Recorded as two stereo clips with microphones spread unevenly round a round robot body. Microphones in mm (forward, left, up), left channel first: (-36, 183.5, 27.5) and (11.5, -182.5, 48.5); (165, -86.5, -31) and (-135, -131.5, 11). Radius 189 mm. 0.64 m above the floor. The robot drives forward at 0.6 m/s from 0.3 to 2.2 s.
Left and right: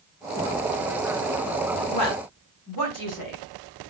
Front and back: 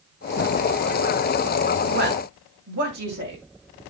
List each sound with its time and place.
1.9 s a woman speaking: 135° left, 5 m